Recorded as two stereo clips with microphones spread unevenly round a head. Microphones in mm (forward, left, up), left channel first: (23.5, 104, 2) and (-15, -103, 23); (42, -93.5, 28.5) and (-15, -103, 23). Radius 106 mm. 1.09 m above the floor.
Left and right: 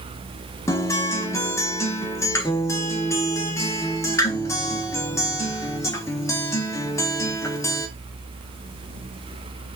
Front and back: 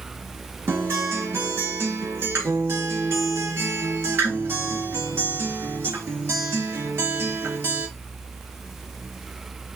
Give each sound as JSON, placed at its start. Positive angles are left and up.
{"t": 0.7, "sound": "a guitar", "azimuth_deg": 155, "distance_m": 0.7}